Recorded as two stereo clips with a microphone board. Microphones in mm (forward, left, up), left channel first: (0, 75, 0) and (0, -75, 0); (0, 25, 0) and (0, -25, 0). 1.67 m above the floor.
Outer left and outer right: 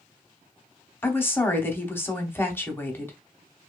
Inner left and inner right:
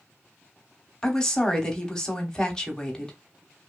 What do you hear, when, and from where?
1.0 s a woman speaking: 15° left (ahead or behind), 0.7 m